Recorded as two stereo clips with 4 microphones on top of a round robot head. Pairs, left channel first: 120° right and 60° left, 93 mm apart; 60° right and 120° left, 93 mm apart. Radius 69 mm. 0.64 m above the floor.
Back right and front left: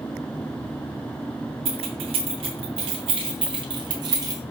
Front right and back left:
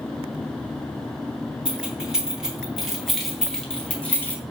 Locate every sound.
1.6 s keys jangling: 40° left, 2.5 m; by 4.4 s 10° left, 1.3 m